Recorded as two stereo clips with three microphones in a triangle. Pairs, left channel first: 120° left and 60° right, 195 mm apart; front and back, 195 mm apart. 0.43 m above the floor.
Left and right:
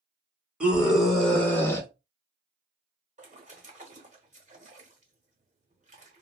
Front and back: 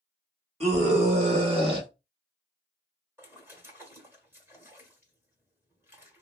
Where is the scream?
140° right, 1.4 m; by 1.9 s 175° left, 1.1 m.